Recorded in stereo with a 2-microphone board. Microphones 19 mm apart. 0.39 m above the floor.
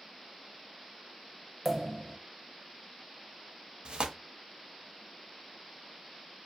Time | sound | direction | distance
1.6 | a pop | 15° right (ahead or behind) | 0.5 m
3.9 | tearing paper | 60° right (ahead or behind) | 0.5 m